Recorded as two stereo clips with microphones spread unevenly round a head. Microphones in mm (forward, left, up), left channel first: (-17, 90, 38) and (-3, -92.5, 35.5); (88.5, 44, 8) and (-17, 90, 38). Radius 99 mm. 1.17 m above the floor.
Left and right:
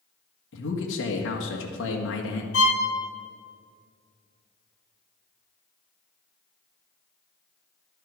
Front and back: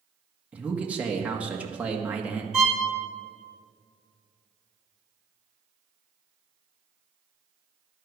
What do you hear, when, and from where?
0.5 s a man speaking: 75° left, 1.7 m
2.5 s a violin: 70° left, 2 m